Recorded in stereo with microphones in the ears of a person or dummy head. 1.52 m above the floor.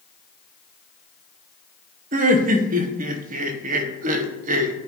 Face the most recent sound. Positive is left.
turn(degrees=-50)  # may be behind; listen again after turning